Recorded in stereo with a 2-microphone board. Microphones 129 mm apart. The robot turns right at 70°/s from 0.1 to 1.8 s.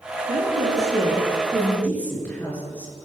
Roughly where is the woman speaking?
Right.